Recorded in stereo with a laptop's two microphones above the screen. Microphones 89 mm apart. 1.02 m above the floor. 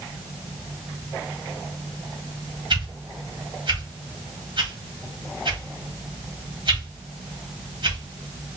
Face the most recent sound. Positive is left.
turn(degrees=-60)  # may be behind; listen again after turning